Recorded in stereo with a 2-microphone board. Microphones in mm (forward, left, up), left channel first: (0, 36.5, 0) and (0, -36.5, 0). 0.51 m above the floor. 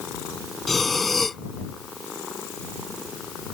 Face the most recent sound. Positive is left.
turn(degrees=0)  # may be behind; listen again after turning